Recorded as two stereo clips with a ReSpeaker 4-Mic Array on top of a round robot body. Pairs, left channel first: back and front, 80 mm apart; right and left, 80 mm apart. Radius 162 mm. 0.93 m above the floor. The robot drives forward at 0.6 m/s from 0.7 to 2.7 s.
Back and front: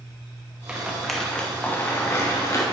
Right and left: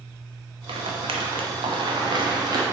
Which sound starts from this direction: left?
A rattle, at 0.7 s.